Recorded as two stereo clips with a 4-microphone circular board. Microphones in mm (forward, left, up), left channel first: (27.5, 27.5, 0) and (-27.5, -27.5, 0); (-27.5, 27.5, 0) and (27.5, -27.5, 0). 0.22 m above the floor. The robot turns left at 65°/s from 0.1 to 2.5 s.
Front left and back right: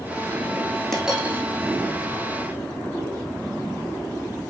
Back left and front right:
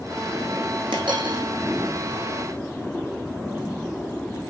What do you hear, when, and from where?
0.9 s a dropped coin: 40° right, 3 m; by 1.4 s 75° right, 3 m